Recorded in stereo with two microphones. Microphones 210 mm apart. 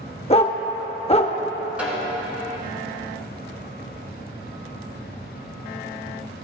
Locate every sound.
0.3 s a dog barking: 30° left (ahead or behind), 0.6 m
1.8 s a snare drum: 5° right (ahead or behind), 1.6 m